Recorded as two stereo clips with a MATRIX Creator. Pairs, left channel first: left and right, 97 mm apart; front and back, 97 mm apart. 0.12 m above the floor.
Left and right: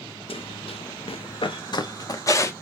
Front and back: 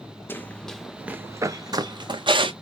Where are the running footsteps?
70° left, 0.7 m; by 2.5 s 150° left, 1.1 m.